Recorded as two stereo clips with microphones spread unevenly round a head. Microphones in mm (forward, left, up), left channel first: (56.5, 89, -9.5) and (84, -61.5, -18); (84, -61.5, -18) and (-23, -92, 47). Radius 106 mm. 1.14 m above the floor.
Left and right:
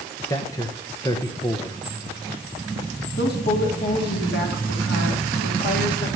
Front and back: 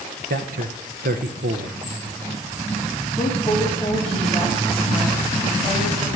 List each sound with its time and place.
0.3 s a man speaking: 170° left, 0.9 m
3.2 s a woman speaking: 95° left, 3 m